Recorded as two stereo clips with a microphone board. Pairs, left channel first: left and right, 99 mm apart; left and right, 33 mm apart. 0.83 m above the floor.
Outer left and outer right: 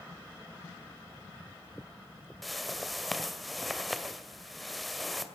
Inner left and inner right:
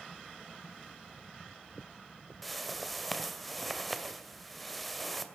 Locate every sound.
2.4 s a whoosh: centre (ahead or behind), 2 m